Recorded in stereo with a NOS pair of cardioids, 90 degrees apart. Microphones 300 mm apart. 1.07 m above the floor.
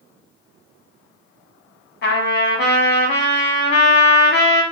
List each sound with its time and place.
2.0 s a trumpet: 40° left, 1.0 m